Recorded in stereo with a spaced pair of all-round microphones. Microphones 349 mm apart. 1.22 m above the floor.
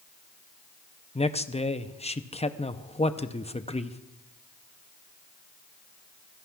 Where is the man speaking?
20° left (ahead or behind), 0.6 m.